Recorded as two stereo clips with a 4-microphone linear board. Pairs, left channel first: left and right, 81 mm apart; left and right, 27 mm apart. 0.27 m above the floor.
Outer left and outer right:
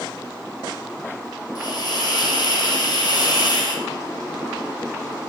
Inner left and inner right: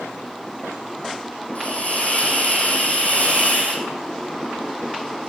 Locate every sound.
1.6 s a hiss: 50° left (ahead or behind), 5.5 m